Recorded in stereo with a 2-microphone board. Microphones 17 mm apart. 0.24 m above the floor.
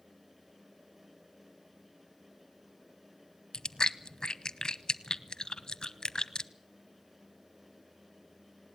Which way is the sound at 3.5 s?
45° left (ahead or behind).